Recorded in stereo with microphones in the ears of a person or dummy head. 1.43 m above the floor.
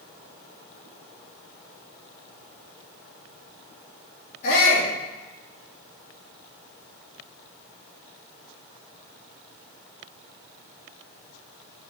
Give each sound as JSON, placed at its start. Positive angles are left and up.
{"t": 4.4, "sound": "a shout", "side_deg": 55, "distance_m": 3.0}